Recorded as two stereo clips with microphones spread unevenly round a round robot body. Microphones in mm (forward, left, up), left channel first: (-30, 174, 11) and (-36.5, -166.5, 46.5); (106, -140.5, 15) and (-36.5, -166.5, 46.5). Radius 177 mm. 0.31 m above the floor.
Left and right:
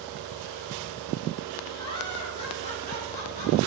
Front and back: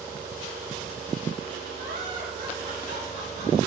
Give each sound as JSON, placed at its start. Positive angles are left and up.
{"t": 1.8, "sound": "laughter", "azimuth_deg": 165, "distance_m": 5.0}